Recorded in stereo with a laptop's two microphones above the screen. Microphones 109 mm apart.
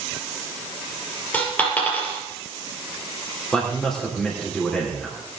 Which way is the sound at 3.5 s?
5° left (ahead or behind).